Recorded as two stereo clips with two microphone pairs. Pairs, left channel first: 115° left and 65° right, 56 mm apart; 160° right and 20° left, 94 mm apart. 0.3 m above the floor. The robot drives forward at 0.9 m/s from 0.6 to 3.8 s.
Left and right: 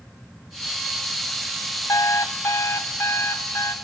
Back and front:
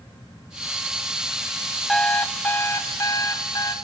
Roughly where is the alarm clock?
Behind left.